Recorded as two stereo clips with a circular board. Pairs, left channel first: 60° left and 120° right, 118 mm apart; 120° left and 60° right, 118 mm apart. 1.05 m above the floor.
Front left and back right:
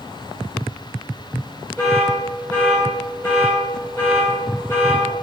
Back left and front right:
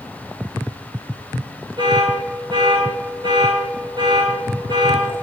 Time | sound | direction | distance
1.8 | an alarm | 15° right | 3.5 m